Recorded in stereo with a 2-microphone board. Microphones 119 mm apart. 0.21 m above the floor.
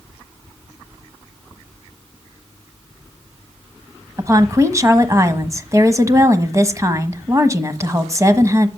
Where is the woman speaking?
25° right (ahead or behind), 1.2 m.